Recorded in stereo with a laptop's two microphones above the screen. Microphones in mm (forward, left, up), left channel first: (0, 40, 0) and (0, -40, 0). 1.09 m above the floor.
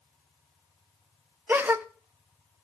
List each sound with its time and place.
1.5 s a gasp: 25° right (ahead or behind), 0.6 m